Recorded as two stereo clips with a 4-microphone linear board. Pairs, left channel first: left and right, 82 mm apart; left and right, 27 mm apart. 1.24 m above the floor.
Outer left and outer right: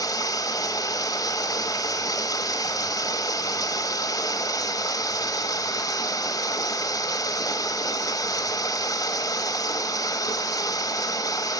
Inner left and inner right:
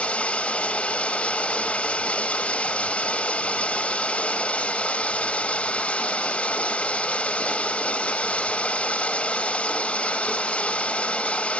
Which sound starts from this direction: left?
Running water, at 0.0 s.